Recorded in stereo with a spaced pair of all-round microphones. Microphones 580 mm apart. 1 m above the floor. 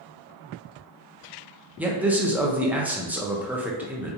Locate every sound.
1.8 s a man speaking: 5° right (ahead or behind), 0.7 m